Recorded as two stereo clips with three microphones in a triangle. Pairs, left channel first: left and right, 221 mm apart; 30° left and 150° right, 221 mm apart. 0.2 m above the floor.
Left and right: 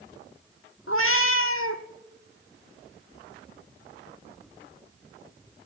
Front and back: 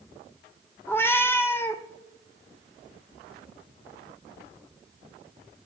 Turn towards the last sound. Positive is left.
turn(degrees=110)